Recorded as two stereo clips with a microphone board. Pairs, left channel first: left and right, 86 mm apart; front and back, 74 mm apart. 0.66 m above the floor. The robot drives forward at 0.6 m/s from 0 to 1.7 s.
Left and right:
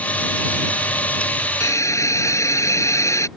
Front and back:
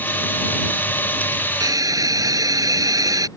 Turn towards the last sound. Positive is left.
turn(degrees=145)